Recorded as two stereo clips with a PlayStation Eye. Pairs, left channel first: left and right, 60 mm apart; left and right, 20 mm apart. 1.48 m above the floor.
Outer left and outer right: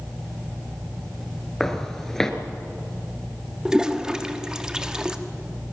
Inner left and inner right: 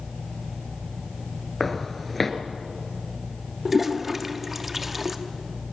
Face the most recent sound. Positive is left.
turn(degrees=-10)  # may be behind; listen again after turning